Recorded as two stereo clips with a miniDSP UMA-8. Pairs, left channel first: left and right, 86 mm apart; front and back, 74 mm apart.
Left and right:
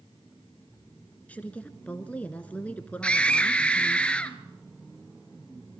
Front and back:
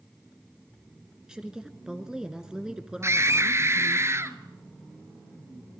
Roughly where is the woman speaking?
Behind left.